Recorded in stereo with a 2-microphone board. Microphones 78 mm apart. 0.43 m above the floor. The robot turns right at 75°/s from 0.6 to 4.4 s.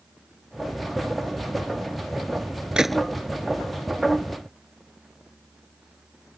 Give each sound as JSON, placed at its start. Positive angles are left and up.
{"t": 2.8, "sound": "a gunshot", "side_deg": -10}